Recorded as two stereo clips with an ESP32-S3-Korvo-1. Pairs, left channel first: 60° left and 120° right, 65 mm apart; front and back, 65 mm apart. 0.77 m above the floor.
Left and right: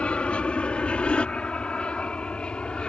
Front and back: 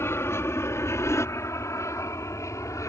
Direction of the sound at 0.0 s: 5° right.